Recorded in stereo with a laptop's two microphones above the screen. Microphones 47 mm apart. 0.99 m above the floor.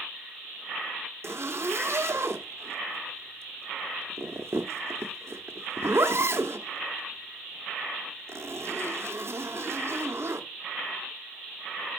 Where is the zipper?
60° right (ahead or behind), 0.9 m.